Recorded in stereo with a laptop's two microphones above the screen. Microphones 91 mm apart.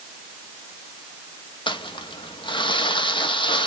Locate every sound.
1.7 s crumpling: 65° left (ahead or behind), 0.9 m